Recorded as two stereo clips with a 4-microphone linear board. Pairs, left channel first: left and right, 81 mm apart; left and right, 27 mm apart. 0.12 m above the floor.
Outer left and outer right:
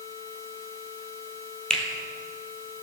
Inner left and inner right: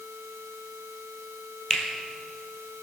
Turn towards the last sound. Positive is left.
turn(degrees=5)  # may be behind; listen again after turning